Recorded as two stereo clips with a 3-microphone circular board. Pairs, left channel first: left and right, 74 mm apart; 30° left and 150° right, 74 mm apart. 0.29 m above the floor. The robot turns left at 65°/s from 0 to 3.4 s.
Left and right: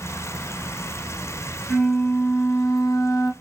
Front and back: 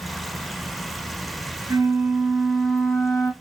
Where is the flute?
175° left, 1.4 m; by 3.3 s 65° left, 1.4 m.